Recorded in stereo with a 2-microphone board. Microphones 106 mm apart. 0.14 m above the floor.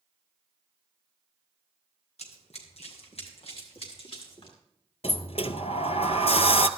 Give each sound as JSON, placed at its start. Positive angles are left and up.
{"t": 2.2, "sound": "running footsteps", "side_deg": 80, "distance_m": 3.5}
{"t": 5.0, "sound": "a sliding door", "side_deg": 70, "distance_m": 0.7}